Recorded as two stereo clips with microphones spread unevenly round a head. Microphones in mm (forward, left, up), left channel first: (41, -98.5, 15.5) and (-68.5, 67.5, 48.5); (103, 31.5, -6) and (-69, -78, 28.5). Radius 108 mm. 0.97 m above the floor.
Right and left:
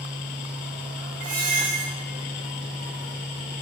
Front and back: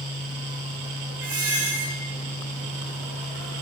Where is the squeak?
175° left, 3.5 m.